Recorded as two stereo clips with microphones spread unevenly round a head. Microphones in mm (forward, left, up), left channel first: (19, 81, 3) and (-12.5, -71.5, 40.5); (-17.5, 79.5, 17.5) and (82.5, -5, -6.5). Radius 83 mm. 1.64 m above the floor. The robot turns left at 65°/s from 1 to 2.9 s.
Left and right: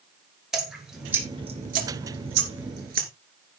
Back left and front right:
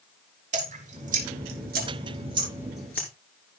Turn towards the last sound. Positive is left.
turn(degrees=-135)